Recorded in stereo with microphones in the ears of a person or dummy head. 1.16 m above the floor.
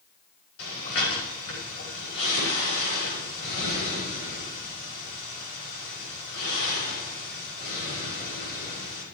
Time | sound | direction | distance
0.6 | breathing | 85° left | 5.5 m